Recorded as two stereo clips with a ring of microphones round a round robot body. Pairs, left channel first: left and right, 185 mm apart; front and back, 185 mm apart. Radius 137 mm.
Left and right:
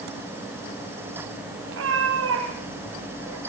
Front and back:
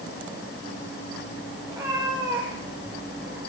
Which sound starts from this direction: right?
A cat meowing, at 1.7 s.